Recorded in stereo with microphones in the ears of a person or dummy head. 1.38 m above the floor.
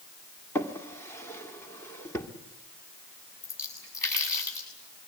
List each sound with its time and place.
0.6 s a drawer: 10° left (ahead or behind), 1.7 m
3.4 s a splash: 20° left (ahead or behind), 7 m